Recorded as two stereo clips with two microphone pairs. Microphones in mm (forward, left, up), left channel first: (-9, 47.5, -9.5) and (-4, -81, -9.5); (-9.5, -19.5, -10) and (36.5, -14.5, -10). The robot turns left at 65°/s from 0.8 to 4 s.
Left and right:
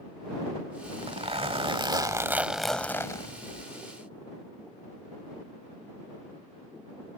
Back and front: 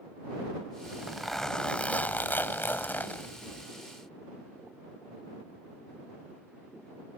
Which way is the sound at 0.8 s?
60° right.